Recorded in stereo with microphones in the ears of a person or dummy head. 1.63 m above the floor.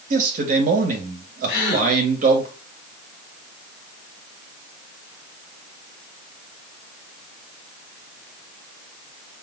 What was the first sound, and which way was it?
A man speaking, 45° right (ahead or behind).